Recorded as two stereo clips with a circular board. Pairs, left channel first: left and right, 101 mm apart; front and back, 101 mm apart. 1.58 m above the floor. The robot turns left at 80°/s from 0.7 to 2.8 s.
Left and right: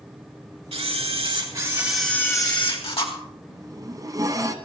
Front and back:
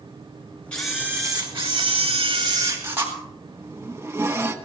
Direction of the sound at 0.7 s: 80° right.